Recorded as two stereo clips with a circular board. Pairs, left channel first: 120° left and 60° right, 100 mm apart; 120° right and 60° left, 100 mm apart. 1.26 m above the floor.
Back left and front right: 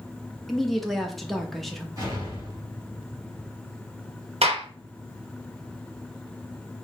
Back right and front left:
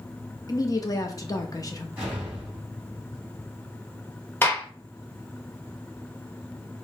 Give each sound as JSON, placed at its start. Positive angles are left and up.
{"t": 0.5, "sound": "a woman speaking", "azimuth_deg": -155, "distance_m": 0.6}
{"t": 2.0, "sound": "an explosion", "azimuth_deg": -10, "distance_m": 2.0}
{"t": 4.4, "sound": "a gunshot", "azimuth_deg": -50, "distance_m": 0.9}